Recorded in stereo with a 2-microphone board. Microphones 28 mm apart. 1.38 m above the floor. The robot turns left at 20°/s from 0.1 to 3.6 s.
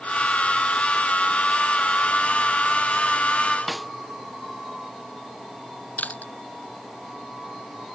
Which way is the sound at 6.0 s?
70° left (ahead or behind).